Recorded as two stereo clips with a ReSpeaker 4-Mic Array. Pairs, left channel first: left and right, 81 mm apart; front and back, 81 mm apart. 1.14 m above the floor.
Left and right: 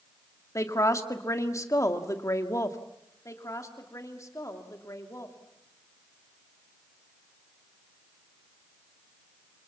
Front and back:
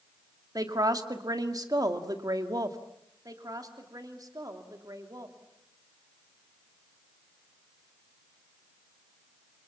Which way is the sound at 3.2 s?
140° left.